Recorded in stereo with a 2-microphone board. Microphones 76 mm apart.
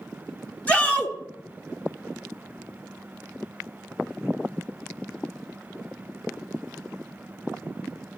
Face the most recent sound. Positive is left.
turn(degrees=20)  # may be behind; listen again after turning